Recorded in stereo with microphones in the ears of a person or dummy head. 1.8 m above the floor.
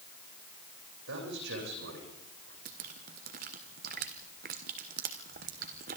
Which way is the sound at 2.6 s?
40° right (ahead or behind).